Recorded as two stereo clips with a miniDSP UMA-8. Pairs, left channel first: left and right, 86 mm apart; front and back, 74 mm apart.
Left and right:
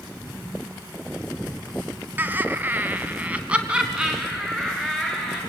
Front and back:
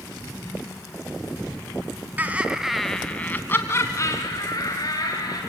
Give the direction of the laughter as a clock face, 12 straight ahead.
5 o'clock.